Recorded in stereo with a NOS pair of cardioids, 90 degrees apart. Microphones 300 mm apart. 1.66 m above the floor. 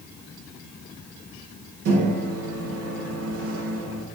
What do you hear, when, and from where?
1.9 s a microwave: 55° right, 0.6 m